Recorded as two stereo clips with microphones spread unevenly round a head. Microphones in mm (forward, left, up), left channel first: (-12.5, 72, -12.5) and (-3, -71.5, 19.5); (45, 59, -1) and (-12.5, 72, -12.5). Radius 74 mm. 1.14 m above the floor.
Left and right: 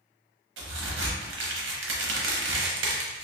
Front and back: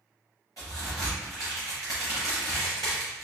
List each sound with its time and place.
0.6 s a crack: 85° right, 0.9 m